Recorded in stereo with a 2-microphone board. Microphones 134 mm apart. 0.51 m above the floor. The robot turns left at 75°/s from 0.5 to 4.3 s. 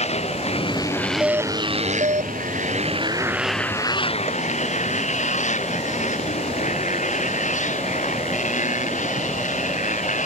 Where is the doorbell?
10° right; by 2.3 s 95° right.